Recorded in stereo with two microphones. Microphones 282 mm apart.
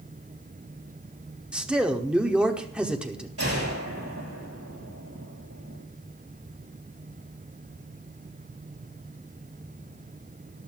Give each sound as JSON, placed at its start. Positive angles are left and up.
{"t": 1.5, "sound": "a man speaking", "side_deg": -5, "distance_m": 1.0}
{"t": 3.4, "sound": "a gunshot", "side_deg": -55, "distance_m": 6.0}